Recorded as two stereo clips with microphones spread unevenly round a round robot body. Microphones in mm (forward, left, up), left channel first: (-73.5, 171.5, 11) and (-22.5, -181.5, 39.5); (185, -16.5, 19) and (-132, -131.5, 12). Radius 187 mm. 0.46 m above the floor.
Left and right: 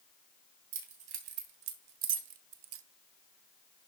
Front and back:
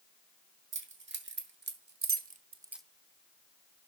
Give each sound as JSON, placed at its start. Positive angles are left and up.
{"t": 0.7, "sound": "keys jangling", "azimuth_deg": -105, "distance_m": 3.5}